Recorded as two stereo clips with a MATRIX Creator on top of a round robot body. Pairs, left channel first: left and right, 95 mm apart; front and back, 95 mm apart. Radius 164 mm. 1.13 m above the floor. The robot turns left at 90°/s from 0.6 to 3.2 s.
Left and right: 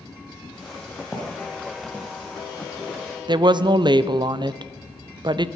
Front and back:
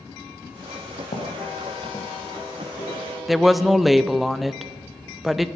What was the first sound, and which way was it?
Footsteps, straight ahead.